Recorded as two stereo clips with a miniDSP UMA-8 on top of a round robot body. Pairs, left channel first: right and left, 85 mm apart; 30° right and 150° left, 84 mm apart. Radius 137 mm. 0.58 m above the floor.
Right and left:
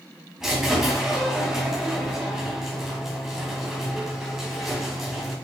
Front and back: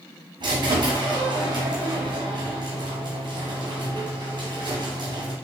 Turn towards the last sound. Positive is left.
turn(degrees=175)